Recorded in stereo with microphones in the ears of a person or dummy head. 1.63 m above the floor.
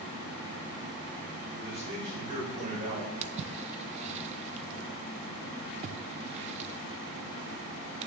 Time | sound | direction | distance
1.6 | a man speaking | 30° right (ahead or behind) | 6.5 m
3.2 | a splash | 40° right (ahead or behind) | 0.6 m